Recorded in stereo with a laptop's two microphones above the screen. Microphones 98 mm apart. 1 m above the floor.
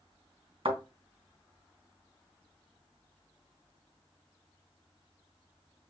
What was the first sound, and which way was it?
A thud, 65° right (ahead or behind).